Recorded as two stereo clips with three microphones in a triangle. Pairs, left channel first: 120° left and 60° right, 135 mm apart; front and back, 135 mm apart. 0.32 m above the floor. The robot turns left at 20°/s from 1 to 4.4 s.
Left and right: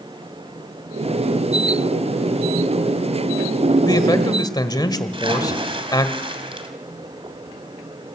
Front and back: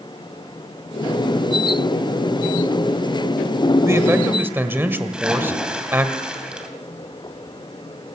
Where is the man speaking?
135° left, 1.6 m; by 6.1 s 120° left, 1.6 m.